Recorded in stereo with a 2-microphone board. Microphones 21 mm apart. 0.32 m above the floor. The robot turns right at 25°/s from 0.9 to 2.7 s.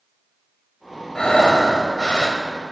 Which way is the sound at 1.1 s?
45° left.